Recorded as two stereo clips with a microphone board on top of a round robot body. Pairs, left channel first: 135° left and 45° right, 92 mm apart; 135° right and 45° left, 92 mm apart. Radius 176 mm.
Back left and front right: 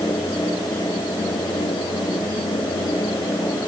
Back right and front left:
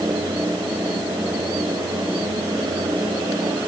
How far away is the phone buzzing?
No phone buzzing in this recording.